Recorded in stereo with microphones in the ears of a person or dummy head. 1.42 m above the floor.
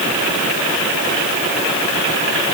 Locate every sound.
Only background noise.